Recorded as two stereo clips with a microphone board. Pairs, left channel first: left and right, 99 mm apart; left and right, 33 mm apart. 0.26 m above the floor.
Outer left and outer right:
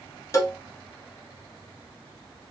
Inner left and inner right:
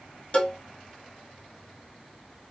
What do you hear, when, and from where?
0.3 s a cowbell: 35° left (ahead or behind), 2 m